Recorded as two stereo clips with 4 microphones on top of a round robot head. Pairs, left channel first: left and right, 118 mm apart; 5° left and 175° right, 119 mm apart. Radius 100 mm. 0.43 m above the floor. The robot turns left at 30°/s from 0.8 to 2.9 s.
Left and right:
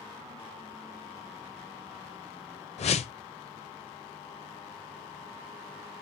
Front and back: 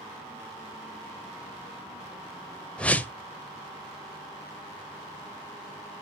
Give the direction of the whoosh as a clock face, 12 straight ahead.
9 o'clock.